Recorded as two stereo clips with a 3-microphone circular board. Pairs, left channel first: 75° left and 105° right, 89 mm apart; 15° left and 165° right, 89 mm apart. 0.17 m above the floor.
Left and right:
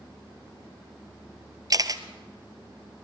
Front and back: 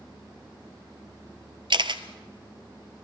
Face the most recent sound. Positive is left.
turn(degrees=-145)